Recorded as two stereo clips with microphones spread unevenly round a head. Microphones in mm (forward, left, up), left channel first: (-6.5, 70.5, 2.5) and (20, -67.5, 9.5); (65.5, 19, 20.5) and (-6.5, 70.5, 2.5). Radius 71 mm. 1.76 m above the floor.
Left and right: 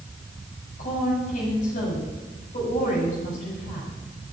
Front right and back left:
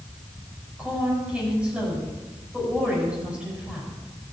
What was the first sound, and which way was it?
A woman speaking, 65° left.